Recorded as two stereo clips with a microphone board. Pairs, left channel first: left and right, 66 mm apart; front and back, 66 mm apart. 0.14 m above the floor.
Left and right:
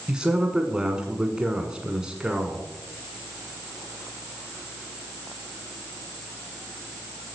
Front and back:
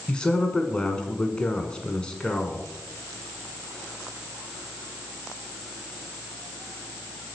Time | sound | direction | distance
0.1 | a man speaking | 40° right | 1.5 m